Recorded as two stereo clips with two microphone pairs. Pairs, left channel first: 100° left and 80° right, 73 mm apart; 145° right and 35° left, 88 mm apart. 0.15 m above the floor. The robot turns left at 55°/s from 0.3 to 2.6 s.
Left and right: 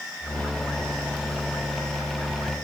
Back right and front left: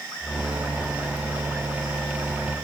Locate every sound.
Only background noise.